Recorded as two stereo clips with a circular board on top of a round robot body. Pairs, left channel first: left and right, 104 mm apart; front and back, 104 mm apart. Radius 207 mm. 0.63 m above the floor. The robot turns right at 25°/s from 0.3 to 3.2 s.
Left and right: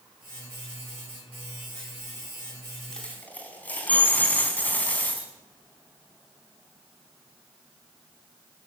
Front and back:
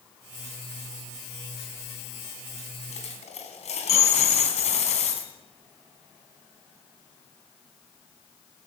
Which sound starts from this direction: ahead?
A dropped coin, at 2.9 s.